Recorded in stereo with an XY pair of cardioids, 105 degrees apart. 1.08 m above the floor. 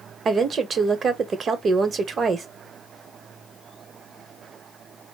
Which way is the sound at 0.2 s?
45° right.